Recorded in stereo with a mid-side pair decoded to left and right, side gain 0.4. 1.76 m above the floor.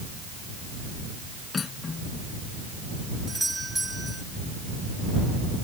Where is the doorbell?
15° right.